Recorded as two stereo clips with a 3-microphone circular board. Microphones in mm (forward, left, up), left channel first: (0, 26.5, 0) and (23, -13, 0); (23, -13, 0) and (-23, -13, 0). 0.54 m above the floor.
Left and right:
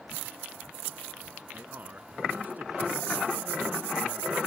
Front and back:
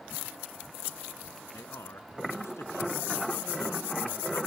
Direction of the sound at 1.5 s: 10° right.